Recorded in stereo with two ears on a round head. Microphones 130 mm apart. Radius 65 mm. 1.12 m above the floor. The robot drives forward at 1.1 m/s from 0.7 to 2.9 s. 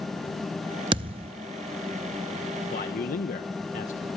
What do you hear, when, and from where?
0.9 s a thud: 35° right (ahead or behind), 0.6 m
2.7 s a man speaking: 55° left (ahead or behind), 1.2 m